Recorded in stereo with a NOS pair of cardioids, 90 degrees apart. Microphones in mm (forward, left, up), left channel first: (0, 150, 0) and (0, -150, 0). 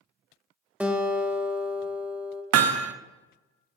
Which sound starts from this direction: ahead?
A guitar, at 0.8 s.